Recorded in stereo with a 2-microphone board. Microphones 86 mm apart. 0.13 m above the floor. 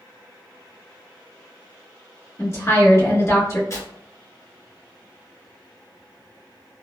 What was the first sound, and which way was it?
A woman speaking, 35° left (ahead or behind).